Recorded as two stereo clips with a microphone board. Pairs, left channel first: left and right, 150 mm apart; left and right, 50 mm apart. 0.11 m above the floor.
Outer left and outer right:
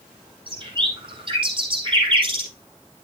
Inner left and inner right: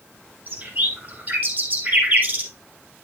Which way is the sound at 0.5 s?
35° right (ahead or behind).